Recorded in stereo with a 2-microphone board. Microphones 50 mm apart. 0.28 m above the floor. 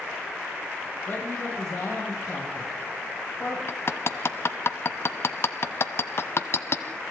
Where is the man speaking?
55° left (ahead or behind), 9 m; by 3.6 s 50° left (ahead or behind), 9 m.